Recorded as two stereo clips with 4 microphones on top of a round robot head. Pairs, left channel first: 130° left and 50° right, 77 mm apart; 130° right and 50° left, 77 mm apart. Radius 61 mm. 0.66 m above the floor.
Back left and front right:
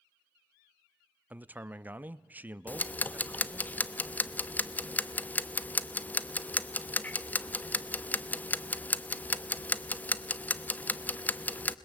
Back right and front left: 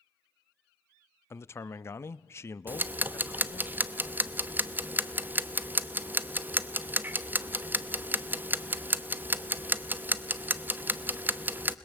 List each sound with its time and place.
1.3 s a man speaking: 105° right, 0.6 m
2.7 s ticking: 85° left, 0.8 m